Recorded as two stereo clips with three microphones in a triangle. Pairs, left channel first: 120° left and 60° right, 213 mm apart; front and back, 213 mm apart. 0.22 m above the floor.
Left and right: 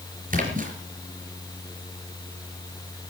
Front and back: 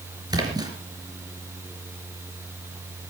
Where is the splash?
110° right, 4 m.